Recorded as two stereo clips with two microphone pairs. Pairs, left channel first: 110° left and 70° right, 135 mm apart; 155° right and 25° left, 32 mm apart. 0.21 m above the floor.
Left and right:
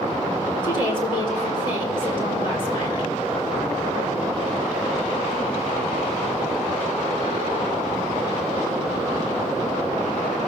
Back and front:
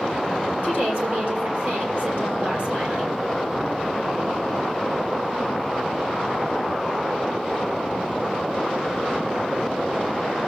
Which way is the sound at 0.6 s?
60° left.